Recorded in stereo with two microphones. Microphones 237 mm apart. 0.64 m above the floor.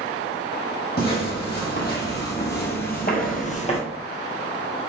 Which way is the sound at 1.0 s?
45° left (ahead or behind).